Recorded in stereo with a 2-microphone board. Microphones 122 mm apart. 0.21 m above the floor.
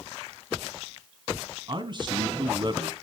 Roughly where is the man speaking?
Right.